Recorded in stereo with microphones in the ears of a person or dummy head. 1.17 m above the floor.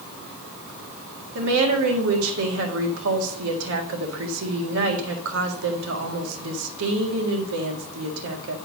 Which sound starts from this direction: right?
A woman speaking, at 1.4 s.